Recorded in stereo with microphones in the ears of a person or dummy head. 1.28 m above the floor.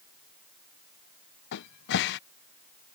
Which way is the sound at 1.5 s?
60° left (ahead or behind).